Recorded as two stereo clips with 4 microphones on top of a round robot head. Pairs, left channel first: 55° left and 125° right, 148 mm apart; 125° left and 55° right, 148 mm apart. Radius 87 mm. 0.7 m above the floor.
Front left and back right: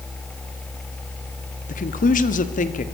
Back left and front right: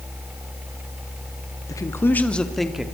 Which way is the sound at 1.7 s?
60° left.